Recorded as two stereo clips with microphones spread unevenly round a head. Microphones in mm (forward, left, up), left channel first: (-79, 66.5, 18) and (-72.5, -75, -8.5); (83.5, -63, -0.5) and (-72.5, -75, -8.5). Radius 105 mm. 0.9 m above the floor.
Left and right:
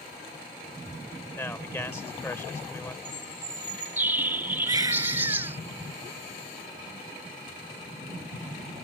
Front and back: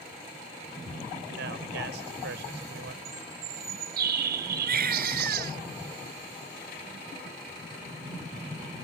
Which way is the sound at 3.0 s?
165° right.